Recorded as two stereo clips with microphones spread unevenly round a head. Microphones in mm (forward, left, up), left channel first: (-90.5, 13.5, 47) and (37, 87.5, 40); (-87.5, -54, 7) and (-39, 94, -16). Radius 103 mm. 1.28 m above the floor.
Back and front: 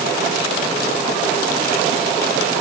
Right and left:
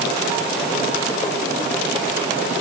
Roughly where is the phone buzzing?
I don't hear a phone buzzing.